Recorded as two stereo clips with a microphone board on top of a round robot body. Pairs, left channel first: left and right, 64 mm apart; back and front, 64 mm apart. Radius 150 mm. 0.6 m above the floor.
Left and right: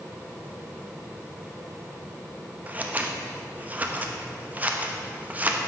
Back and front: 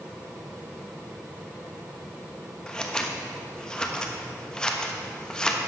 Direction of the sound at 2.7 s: 115° right.